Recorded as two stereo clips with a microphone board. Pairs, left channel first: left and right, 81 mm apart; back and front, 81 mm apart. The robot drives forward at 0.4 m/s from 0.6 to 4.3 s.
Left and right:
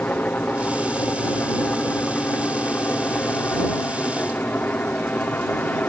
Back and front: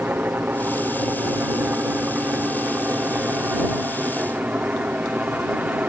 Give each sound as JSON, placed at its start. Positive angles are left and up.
{"t": 0.0, "sound": "a helicopter", "azimuth_deg": 40}